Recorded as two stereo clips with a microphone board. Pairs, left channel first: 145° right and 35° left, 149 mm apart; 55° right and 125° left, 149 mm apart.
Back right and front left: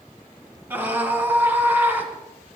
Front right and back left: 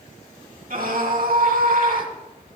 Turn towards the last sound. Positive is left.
turn(degrees=110)